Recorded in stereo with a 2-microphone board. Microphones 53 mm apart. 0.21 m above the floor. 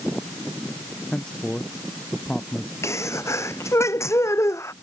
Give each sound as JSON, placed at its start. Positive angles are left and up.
{"t": 1.1, "sound": "a man speaking", "side_deg": 15}
{"t": 2.8, "sound": "a sneeze", "side_deg": 60}